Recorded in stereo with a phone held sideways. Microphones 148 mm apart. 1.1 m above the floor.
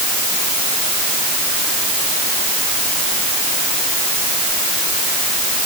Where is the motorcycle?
I don't hear a motorcycle.